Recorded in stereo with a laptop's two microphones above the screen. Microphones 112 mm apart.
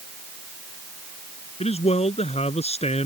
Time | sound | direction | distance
1.6 | a man speaking | 70° left (ahead or behind) | ?